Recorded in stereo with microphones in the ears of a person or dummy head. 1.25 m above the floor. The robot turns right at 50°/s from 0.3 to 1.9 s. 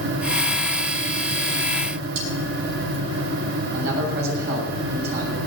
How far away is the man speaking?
About 7 m.